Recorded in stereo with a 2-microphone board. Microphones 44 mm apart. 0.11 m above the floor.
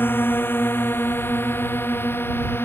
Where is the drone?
50° left (ahead or behind); by 2.6 s 55° left (ahead or behind).